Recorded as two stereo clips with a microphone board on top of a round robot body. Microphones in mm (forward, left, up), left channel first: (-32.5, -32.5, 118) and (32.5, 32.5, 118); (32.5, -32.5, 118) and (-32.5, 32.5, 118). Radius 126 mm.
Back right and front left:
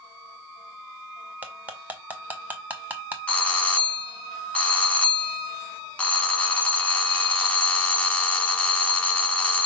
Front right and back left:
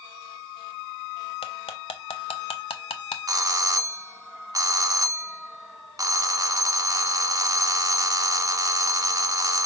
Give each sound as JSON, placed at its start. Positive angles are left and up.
{"t": 1.4, "sound": "cutlery clinking", "azimuth_deg": -30, "distance_m": 0.9}
{"t": 3.3, "sound": "a doorbell", "azimuth_deg": 160, "distance_m": 1.4}